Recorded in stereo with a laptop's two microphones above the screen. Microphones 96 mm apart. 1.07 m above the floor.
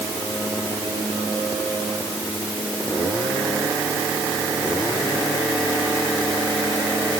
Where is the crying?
I don't hear crying.